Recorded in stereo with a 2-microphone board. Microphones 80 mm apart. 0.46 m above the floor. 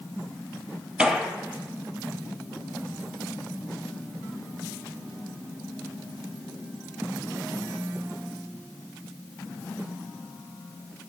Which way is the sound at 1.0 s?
15° right (ahead or behind).